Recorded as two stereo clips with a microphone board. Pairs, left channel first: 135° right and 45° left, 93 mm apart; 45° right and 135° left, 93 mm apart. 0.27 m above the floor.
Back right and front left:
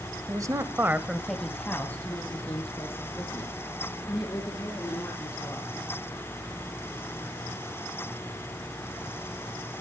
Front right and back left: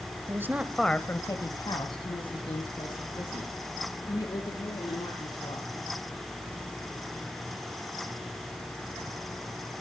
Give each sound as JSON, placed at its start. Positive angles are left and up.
{"t": 0.3, "sound": "a woman speaking", "azimuth_deg": 85, "distance_m": 1.3}